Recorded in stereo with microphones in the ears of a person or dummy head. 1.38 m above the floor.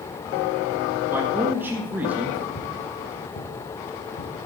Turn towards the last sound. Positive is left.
turn(degrees=65)  # may be behind; listen again after turning